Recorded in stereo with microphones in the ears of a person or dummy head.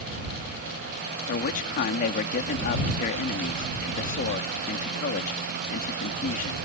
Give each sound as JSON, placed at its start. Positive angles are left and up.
{"t": 1.3, "sound": "a man speaking", "side_deg": 45}